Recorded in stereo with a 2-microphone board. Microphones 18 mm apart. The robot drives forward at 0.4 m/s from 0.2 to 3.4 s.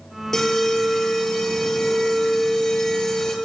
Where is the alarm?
30° left (ahead or behind), 6 m; by 3.4 s 35° left (ahead or behind), 5 m.